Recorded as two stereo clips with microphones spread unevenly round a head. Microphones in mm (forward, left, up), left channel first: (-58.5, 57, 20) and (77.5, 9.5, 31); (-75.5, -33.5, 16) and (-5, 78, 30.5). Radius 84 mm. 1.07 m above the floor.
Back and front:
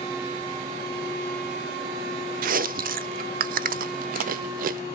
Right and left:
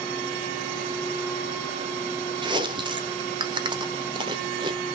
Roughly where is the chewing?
Ahead.